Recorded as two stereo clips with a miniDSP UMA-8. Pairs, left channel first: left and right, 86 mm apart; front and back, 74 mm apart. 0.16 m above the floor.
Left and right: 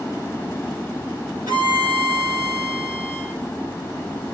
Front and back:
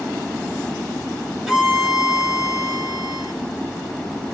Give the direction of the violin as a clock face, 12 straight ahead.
3 o'clock.